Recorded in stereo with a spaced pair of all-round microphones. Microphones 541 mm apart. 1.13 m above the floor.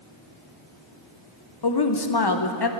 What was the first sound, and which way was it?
A woman speaking, 45° left (ahead or behind).